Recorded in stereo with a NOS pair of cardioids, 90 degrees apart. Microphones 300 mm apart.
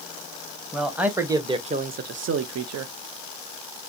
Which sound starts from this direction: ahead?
A man speaking, at 0.7 s.